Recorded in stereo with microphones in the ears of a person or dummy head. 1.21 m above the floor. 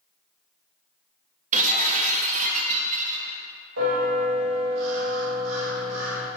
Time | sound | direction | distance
1.5 | breaking glass | 35° right (ahead or behind) | 0.8 m
3.8 | a bell | 75° right (ahead or behind) | 1.9 m